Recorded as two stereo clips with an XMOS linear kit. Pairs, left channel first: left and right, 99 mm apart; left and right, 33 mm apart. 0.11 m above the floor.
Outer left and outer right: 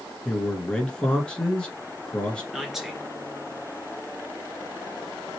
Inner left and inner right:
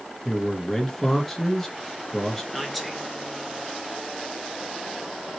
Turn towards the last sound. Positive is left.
turn(degrees=-5)  # may be behind; listen again after turning